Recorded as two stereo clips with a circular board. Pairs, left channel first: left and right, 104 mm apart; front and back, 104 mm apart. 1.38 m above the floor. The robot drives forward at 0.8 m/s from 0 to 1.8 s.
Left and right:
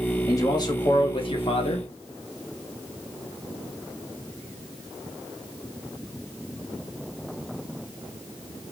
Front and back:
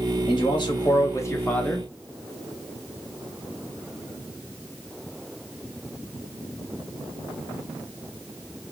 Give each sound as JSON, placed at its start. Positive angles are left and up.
{"t": 0.3, "sound": "a man speaking", "azimuth_deg": 35, "distance_m": 1.7}